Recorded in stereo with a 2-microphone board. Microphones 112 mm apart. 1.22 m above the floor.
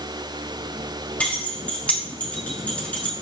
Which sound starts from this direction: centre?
Keys jangling, at 1.2 s.